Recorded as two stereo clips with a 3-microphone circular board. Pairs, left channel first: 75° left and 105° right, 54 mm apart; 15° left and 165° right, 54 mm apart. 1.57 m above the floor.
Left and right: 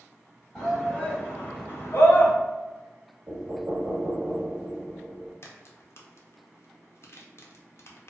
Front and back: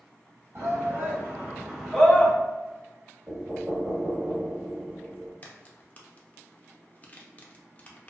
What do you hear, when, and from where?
0.6 s a shout: 155° left, 1.7 m; by 2.3 s 85° left, 0.9 m
3.3 s knocking: 110° right, 0.9 m
5.4 s a crack: 70° left, 0.5 m